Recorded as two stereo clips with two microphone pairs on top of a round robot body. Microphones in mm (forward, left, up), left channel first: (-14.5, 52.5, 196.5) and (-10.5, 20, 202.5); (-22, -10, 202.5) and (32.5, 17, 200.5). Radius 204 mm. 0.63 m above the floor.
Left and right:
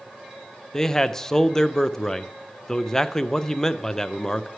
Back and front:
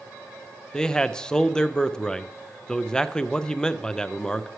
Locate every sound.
0.7 s a man speaking: 135° left, 0.6 m